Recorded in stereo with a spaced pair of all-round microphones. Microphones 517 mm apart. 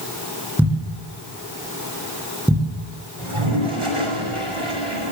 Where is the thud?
5° right (ahead or behind), 10 m.